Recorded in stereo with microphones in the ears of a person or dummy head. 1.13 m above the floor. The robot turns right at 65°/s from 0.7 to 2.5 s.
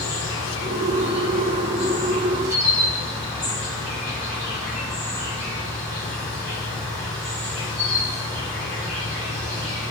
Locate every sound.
0.0 s an insect: 85° left, 1.3 m; by 9.9 s 160° right, 1.3 m